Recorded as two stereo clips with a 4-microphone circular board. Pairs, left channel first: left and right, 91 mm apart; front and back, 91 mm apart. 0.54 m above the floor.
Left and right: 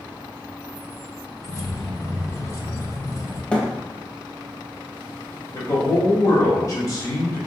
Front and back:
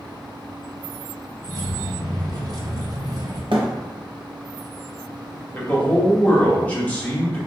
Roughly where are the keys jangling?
Behind left.